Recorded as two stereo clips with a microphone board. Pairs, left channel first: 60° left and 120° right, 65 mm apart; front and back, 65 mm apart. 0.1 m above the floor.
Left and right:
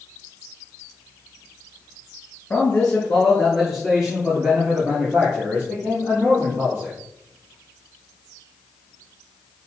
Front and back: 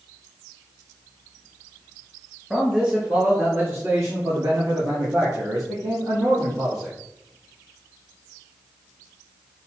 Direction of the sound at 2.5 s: 105° left.